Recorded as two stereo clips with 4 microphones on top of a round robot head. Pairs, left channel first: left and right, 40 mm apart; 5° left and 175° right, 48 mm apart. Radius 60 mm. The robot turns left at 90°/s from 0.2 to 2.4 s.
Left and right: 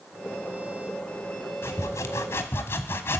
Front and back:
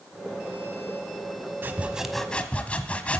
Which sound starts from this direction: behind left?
Sawing, at 1.6 s.